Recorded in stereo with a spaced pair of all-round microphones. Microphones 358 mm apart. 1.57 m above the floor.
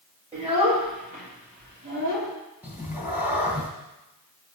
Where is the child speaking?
15° right (ahead or behind), 4 m; by 2.3 s 35° right (ahead or behind), 3 m.